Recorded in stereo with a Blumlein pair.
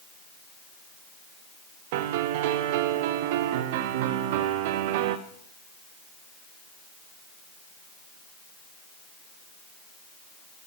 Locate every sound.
1.9 s a piano: 50° right, 0.9 m